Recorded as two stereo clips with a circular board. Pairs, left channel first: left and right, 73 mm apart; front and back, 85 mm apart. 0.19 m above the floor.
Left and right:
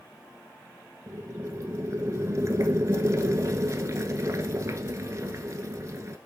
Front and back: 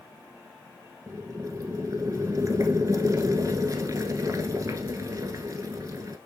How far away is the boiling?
About 1.0 m.